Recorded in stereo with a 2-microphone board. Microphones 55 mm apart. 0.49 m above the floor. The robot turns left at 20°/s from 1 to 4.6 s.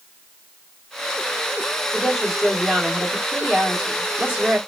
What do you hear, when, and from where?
1.9 s a woman speaking: 10° left, 1.3 m; by 4.6 s 40° right, 1.3 m